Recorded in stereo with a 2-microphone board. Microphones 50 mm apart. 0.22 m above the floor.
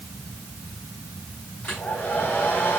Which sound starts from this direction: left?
A hair dryer, at 1.6 s.